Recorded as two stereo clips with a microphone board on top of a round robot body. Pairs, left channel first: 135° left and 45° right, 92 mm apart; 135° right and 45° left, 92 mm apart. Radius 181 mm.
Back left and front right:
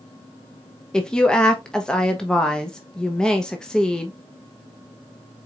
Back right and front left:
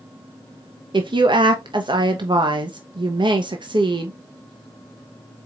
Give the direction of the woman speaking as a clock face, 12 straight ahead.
10 o'clock.